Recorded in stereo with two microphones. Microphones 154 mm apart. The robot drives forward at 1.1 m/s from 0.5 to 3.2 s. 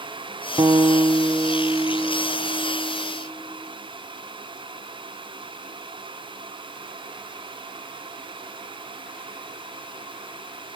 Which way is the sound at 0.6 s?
25° right (ahead or behind).